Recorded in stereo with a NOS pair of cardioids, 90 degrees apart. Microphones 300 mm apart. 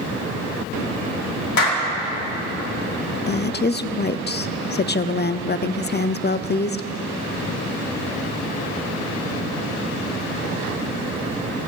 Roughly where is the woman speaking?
Ahead left.